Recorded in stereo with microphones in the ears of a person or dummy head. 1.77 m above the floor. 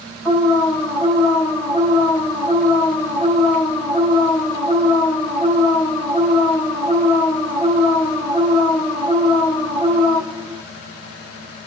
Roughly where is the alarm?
Centre.